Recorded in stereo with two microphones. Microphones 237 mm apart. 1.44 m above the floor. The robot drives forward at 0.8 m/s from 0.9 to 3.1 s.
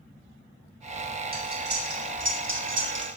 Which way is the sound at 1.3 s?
40° right (ahead or behind).